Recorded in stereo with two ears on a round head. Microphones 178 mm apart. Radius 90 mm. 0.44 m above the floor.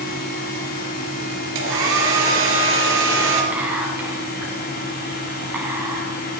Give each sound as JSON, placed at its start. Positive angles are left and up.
{"t": 1.6, "sound": "a hair dryer", "side_deg": -75, "distance_m": 3.0}
{"t": 3.5, "sound": "whispering", "side_deg": -10, "distance_m": 4.0}